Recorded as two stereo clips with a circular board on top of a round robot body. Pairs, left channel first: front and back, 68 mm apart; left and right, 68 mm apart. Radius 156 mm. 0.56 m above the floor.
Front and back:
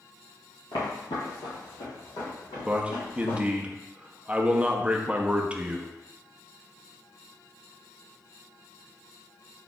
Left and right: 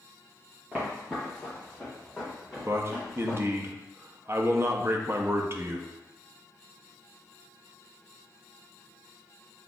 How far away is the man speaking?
About 0.7 m.